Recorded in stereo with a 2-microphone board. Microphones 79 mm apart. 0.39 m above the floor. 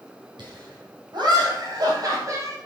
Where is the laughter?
70° right (ahead or behind), 4.5 m; by 2.6 s 35° right (ahead or behind), 3 m.